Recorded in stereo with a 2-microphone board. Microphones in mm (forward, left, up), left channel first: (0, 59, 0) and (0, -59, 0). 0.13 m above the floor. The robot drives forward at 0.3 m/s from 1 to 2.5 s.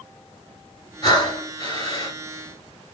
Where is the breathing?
35° left (ahead or behind), 2 m; by 2.2 s 40° left (ahead or behind), 2 m.